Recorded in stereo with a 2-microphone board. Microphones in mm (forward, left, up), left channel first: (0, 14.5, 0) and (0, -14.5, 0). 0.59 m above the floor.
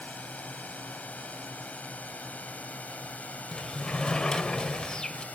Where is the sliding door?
25° left (ahead or behind).